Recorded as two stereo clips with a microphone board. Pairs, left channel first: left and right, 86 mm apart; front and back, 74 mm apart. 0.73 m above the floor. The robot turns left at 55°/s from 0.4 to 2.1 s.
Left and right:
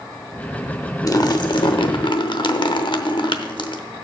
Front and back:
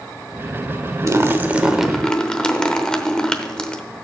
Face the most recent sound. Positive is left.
turn(degrees=80)